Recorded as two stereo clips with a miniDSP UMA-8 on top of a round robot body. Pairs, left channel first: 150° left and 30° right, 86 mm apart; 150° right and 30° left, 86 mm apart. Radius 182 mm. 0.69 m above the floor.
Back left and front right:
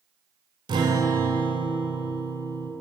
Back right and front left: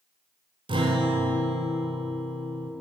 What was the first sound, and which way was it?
A guitar, 5° left.